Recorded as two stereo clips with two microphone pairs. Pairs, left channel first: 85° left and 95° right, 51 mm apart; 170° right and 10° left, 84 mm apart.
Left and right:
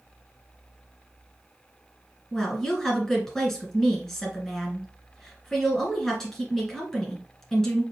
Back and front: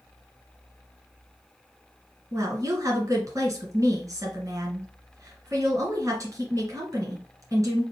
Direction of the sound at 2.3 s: 5° left.